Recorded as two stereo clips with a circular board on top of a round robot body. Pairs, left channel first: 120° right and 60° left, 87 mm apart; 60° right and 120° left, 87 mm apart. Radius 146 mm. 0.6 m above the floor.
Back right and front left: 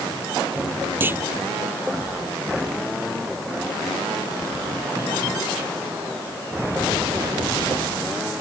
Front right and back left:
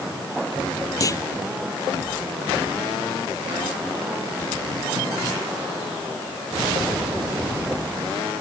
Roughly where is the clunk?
Ahead.